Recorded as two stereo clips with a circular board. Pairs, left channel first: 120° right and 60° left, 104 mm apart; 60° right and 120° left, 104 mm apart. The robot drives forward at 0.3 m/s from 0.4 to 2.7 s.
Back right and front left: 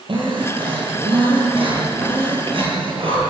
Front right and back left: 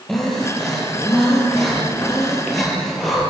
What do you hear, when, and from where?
0.1 s breathing: 25° left, 7.5 m; by 3.2 s 30° left, 7 m